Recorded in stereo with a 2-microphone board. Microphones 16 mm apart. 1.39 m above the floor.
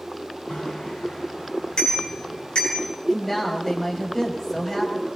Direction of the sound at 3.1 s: 20° left (ahead or behind).